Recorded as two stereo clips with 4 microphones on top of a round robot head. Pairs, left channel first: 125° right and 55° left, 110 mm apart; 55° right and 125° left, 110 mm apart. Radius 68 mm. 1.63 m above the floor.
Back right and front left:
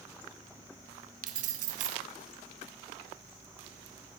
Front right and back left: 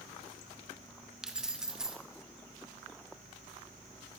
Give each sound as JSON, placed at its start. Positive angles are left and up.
{"t": 1.2, "sound": "keys jangling", "azimuth_deg": 40, "distance_m": 1.3}